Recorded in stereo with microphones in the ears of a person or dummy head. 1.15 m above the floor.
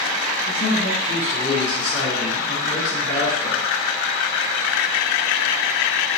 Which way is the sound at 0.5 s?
25° left (ahead or behind).